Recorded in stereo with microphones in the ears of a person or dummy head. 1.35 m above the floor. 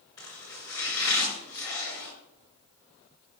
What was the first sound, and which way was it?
Chopping, 20° left (ahead or behind).